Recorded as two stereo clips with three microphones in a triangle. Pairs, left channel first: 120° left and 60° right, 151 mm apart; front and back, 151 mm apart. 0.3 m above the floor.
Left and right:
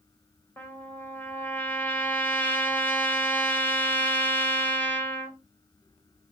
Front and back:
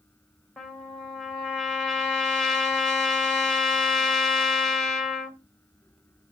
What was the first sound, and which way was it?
A trumpet, 75° left.